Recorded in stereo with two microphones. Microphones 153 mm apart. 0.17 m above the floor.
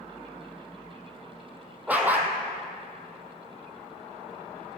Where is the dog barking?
10° right (ahead or behind), 1.8 m.